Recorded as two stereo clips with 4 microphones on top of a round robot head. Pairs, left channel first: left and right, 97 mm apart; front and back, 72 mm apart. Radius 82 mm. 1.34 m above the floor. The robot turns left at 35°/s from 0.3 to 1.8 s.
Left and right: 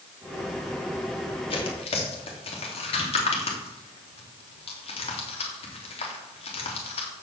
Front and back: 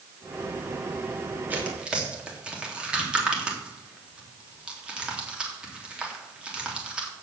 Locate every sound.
1.5 s tearing paper: 115° left, 3.5 m; by 7.1 s 105° left, 3.5 m